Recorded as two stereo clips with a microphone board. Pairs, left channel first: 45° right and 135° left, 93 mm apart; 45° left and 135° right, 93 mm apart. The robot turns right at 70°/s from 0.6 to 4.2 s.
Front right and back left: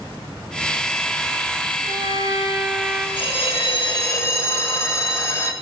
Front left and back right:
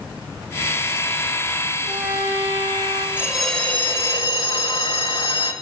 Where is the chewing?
I don't hear chewing.